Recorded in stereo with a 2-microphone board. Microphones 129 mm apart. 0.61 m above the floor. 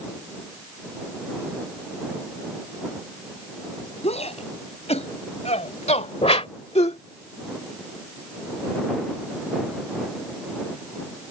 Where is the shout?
55° left (ahead or behind); by 7.0 s 50° left (ahead or behind).